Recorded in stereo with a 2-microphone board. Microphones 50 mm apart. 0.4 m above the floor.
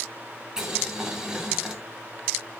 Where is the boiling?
15° right (ahead or behind), 2.5 m.